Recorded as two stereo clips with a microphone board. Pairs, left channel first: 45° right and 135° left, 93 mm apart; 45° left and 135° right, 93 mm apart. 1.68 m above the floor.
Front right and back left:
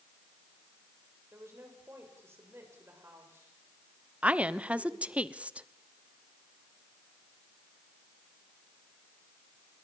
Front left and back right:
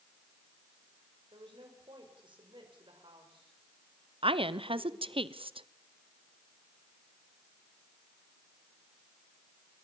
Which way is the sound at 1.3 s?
160° right.